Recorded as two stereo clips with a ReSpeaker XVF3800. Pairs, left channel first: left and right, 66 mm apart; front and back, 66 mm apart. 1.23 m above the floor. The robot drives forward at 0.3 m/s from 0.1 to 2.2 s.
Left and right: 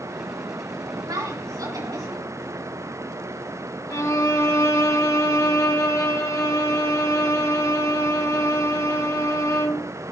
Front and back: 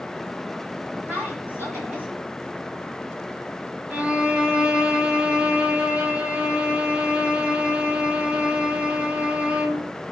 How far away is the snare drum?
No snare drum in this recording.